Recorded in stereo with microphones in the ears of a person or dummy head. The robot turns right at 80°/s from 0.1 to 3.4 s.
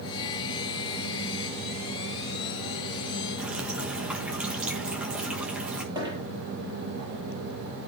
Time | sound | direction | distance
3.4 | dripping | 10° right (ahead or behind) | 1.5 m
6.0 | a dropped coin | 15° right (ahead or behind) | 9 m